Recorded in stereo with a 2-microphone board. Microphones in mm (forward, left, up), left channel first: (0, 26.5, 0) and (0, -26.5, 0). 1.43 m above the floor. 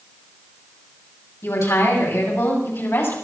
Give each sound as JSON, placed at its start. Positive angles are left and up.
{"t": 1.4, "sound": "a woman speaking", "side_deg": 65, "distance_m": 8.0}